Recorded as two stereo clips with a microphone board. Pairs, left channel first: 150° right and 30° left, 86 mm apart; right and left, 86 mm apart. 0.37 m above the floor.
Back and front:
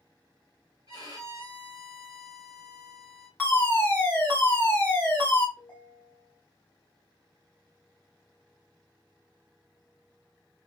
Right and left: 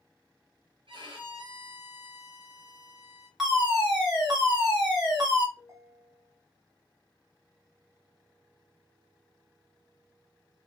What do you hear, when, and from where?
0.9 s a violin: 75° left, 1.2 m
3.4 s a fire alarm: 170° left, 2.0 m
5.6 s a ringtone: 135° left, 1.5 m